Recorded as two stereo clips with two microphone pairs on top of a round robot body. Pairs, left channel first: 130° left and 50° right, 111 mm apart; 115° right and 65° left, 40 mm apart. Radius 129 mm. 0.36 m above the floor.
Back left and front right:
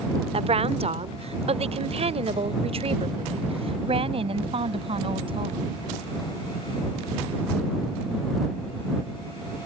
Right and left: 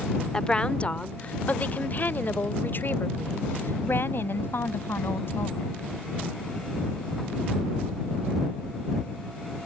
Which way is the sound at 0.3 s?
50° right.